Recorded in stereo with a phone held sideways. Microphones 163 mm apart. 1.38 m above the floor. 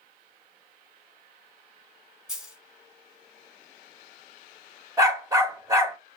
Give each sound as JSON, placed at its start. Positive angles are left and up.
{"t": 2.3, "sound": "a dropped coin", "side_deg": -5, "distance_m": 1.7}
{"t": 5.0, "sound": "a dog barking", "side_deg": -20, "distance_m": 1.1}